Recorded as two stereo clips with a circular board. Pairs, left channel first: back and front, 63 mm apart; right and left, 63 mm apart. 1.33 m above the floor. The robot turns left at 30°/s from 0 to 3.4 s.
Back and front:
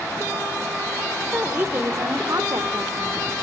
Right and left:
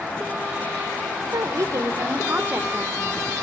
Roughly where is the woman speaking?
Ahead left.